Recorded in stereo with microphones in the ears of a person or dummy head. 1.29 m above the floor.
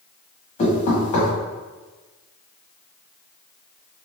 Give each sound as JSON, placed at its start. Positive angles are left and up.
{"t": 0.6, "sound": "knocking", "side_deg": 35, "distance_m": 1.2}